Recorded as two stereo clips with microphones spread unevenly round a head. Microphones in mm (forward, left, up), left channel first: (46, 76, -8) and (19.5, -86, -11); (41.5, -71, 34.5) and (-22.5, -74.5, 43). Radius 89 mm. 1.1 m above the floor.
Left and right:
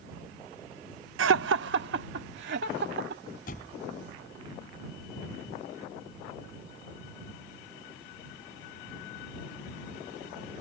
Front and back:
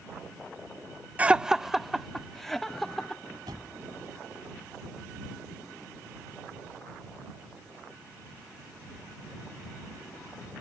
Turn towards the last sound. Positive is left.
turn(degrees=125)